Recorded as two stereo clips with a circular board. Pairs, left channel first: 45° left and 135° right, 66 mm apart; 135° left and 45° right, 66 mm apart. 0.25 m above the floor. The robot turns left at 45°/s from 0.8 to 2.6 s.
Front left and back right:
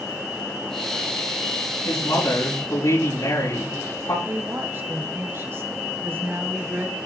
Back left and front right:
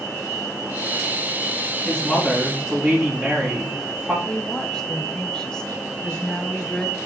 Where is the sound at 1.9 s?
65° left, 6 m; by 4.2 s 30° left, 6 m.